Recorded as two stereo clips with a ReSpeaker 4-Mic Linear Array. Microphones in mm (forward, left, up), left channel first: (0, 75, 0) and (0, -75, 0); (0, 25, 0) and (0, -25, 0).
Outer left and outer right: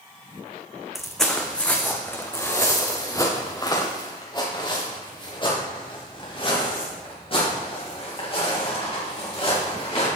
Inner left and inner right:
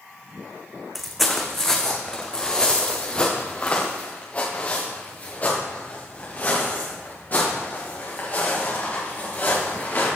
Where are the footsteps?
Centre (ahead or behind), 1.5 m; by 10.1 s 40° left (ahead or behind), 6 m.